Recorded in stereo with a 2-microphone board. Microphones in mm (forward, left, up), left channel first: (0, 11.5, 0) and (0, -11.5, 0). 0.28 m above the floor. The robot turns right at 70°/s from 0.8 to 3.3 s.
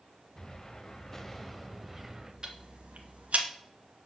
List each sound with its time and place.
0.3 s an explosion: 25° left (ahead or behind), 0.9 m; by 2.3 s 20° right (ahead or behind), 0.9 m
2.4 s ticking: 35° right (ahead or behind), 1.4 m; by 3.5 s 75° right (ahead or behind), 1.4 m